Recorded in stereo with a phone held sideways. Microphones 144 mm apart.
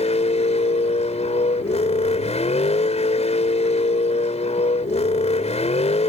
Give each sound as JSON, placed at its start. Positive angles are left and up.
{"t": 0.0, "sound": "a vehicle", "side_deg": 50}